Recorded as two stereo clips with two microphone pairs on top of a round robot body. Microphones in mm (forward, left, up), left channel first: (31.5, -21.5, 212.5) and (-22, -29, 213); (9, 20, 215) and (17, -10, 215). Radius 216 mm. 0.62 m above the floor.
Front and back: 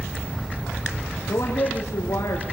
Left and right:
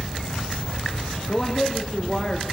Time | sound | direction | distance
1.3 | a man speaking | 30° left | 2 m